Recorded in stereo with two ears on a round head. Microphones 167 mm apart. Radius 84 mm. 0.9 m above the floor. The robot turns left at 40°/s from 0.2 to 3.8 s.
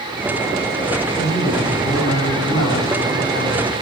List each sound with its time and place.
1.2 s a man speaking: 155° left, 6 m; by 3.7 s 50° left, 6 m